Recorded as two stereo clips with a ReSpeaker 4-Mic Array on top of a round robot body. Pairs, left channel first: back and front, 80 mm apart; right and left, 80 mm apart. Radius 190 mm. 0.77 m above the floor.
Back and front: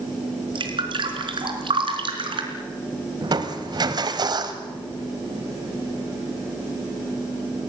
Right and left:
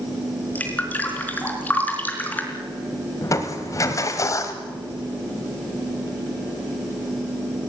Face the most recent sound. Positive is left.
turn(degrees=-35)